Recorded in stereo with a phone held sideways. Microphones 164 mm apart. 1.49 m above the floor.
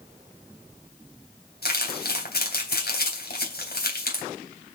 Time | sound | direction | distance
1.6 | crumpling | 75° left (ahead or behind) | 3.5 m